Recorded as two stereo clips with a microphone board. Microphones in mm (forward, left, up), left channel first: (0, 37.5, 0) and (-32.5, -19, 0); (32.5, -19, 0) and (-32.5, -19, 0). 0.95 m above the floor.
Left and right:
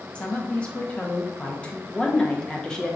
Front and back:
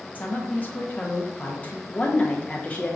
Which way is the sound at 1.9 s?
5° left.